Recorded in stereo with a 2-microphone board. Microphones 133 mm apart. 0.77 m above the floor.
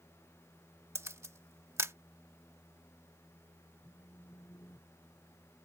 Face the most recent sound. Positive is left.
turn(degrees=25)  # may be behind; listen again after turning